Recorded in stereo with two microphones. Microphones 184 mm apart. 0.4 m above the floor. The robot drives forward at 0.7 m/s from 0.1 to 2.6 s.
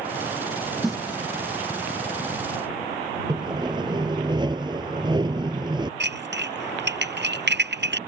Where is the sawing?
25° right (ahead or behind).